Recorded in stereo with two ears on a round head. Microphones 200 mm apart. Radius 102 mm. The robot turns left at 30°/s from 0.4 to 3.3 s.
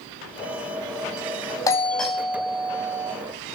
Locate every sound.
1.7 s a doorbell: 15° left, 2.5 m; by 3.1 s 30° right, 2.5 m